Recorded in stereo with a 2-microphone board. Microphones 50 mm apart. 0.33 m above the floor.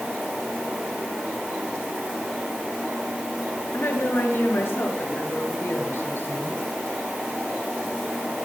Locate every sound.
3.7 s a woman speaking: 55° left (ahead or behind), 6.5 m; by 6.6 s 50° left (ahead or behind), 7.5 m